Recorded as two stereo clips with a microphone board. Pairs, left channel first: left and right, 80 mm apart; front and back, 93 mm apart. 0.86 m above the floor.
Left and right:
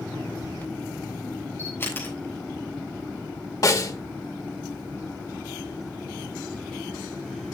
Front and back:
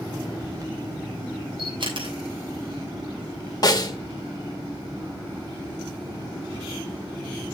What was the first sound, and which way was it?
A camera shutter, 150° left.